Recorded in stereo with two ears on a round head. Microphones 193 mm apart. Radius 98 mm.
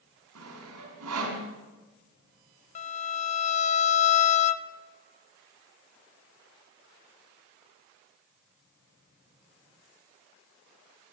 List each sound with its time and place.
0.3 s sawing: 90° right, 4.5 m
2.8 s a violin: 35° left (ahead or behind), 0.6 m